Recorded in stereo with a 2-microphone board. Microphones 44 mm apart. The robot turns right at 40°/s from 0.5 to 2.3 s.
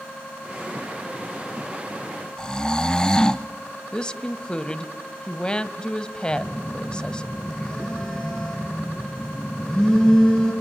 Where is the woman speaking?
20° left (ahead or behind), 1.1 m.